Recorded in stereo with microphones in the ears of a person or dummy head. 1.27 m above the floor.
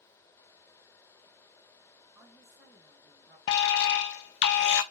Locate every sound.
2.1 s a woman speaking: centre (ahead or behind), 1.9 m
3.5 s an alarm: 65° left (ahead or behind), 0.5 m